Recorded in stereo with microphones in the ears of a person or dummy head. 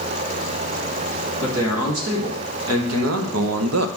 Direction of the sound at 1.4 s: 85° right.